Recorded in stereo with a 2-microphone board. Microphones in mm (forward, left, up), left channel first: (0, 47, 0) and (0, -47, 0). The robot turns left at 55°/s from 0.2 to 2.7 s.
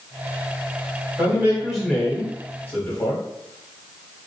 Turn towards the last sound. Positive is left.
turn(degrees=135)